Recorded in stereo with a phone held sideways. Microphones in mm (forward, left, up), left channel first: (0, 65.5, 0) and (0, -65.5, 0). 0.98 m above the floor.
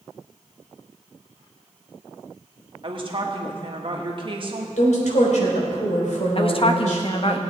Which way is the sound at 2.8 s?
40° right (ahead or behind).